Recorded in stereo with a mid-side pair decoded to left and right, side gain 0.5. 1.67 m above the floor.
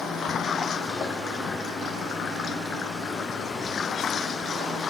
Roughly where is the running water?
Ahead left.